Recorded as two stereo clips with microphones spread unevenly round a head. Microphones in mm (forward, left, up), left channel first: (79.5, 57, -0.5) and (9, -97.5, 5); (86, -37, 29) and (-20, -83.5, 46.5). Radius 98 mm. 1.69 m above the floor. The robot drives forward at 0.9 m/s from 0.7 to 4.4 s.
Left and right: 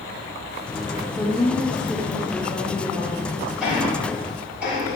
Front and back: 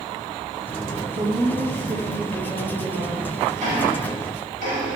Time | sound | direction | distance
1.1 | a woman speaking | 145° left | 1.9 m
3.6 | ticking | 160° left | 7 m